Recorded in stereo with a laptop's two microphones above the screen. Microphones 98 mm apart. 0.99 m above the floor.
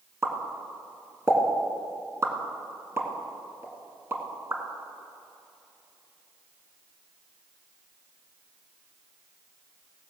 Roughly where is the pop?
Right.